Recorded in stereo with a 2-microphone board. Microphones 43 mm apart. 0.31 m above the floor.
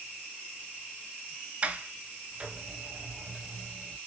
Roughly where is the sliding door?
Right.